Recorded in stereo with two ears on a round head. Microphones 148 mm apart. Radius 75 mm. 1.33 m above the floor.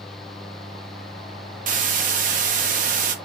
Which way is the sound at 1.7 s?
50° right (ahead or behind).